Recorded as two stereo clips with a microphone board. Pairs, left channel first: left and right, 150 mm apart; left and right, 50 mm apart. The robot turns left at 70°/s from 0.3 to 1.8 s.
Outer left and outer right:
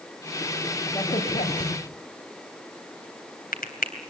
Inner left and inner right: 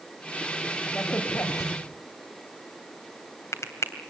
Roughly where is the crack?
Left.